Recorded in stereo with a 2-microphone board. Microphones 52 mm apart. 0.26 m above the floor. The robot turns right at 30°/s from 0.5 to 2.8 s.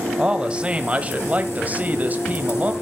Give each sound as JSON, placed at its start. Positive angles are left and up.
{"t": 0.2, "sound": "a man speaking", "azimuth_deg": -135, "distance_m": 1.0}